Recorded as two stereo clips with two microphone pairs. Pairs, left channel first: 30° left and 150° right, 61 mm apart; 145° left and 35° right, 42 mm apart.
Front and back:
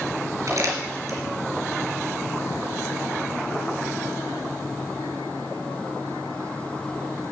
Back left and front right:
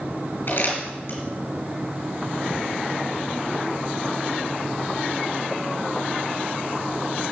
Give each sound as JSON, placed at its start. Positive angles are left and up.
{"t": 0.5, "sound": "crumpling", "azimuth_deg": 175, "distance_m": 4.0}